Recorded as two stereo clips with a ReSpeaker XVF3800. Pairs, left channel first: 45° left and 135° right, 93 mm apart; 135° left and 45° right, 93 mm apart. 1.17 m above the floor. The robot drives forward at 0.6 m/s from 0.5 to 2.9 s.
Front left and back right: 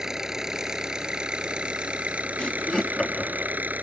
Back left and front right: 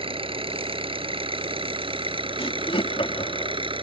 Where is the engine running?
50° right; by 3.8 s 65° right.